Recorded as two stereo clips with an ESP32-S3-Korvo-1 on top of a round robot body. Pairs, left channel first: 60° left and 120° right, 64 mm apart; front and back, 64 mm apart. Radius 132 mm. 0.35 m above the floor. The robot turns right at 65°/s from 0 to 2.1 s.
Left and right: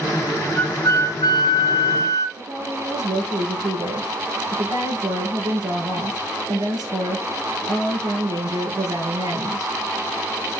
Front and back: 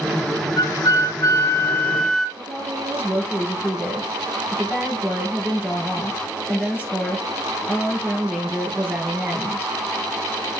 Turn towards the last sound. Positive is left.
turn(degrees=-110)